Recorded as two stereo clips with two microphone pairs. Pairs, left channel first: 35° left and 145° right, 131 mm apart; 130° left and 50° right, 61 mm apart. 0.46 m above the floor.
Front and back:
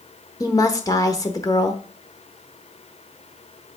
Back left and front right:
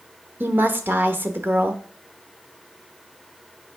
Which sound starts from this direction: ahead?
A woman speaking, at 0.4 s.